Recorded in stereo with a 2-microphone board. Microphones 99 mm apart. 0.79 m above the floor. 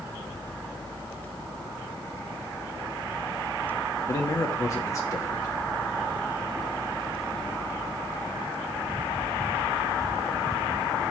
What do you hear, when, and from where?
4.1 s a man speaking: 35° left (ahead or behind), 1.0 m